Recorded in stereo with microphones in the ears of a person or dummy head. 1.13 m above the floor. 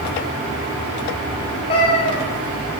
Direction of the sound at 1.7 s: 30° left (ahead or behind).